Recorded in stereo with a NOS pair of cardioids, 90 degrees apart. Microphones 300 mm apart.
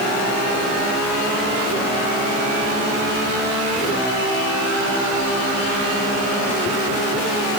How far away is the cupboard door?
I don't hear a cupboard door.